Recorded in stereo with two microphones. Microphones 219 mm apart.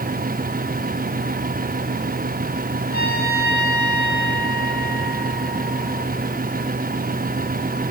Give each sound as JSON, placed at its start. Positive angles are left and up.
{"t": 2.9, "sound": "a trumpet", "side_deg": 40, "distance_m": 8.0}